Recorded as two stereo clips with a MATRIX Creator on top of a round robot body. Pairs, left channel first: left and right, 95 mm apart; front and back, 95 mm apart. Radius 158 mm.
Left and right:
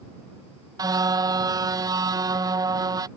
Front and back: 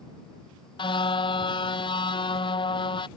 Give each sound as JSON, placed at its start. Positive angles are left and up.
{"t": 0.8, "sound": "a car horn", "azimuth_deg": -40}